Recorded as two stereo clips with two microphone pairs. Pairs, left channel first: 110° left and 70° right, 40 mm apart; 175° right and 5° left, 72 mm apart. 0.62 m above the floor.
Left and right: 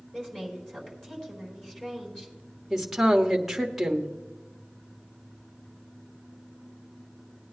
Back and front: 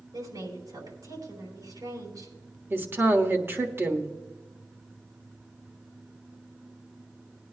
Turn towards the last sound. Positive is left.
turn(degrees=10)